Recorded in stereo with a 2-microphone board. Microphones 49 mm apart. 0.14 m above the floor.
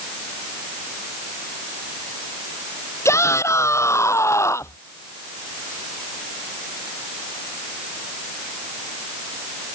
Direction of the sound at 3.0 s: 70° left (ahead or behind).